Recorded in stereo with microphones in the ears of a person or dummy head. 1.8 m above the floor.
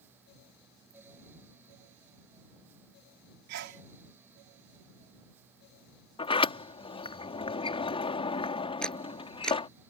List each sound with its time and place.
3.5 s a sneeze: 75° right (ahead or behind)
6.2 s a sliding door: 25° left (ahead or behind)
8.8 s a camera shutter: 10° left (ahead or behind)